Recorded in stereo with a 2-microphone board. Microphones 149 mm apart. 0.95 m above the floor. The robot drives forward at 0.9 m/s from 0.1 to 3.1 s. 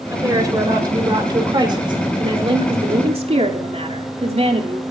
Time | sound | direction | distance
0.1 | a woman speaking | 25° right (ahead or behind) | 5 m